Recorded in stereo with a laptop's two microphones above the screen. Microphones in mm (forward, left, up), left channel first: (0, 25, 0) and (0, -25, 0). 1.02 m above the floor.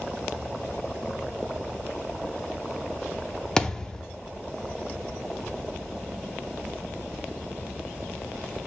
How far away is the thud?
About 0.6 m.